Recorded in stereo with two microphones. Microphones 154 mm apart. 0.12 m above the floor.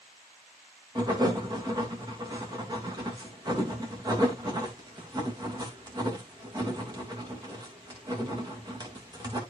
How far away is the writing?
About 3.5 m.